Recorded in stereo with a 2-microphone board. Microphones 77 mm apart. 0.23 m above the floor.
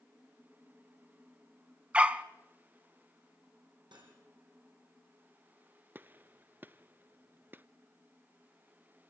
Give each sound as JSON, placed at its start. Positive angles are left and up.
{"t": 1.9, "sound": "a dog barking", "side_deg": -15, "distance_m": 0.9}
{"t": 3.9, "sound": "cutlery clinking", "side_deg": -80, "distance_m": 6.5}
{"t": 6.0, "sound": "a gunshot", "side_deg": -25, "distance_m": 0.5}